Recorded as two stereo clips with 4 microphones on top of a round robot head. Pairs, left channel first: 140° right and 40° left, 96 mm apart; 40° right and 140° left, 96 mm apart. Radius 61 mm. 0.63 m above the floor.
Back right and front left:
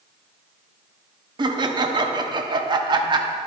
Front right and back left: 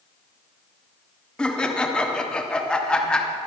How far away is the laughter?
About 1.3 m.